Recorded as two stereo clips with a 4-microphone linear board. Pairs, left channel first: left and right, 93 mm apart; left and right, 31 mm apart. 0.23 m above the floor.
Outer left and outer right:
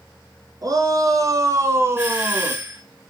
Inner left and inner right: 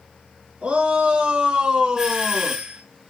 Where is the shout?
45° right (ahead or behind), 3 m; by 2.6 s 20° right (ahead or behind), 2.0 m.